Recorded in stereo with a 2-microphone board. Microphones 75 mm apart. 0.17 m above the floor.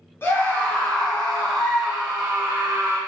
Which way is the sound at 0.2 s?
30° left (ahead or behind).